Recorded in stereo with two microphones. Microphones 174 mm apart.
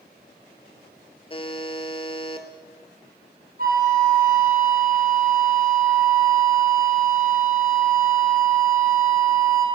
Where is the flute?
60° right (ahead or behind), 4 m.